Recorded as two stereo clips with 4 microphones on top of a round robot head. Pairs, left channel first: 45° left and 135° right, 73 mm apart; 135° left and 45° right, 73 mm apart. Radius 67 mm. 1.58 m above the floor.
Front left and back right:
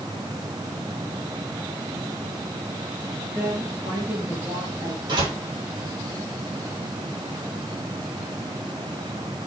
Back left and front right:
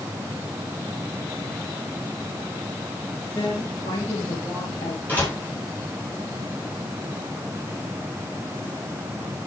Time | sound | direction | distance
3.4 | a woman speaking | 165° left | 4.5 m
5.1 | a door slam | 160° right | 9 m